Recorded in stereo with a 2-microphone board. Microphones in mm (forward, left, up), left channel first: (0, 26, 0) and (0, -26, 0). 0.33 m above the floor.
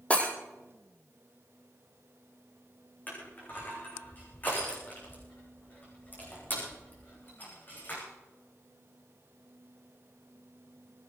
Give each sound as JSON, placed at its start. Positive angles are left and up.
{"t": 0.1, "sound": "breaking glass", "side_deg": 25, "distance_m": 3.0}
{"t": 3.1, "sound": "crushing", "side_deg": 35, "distance_m": 6.5}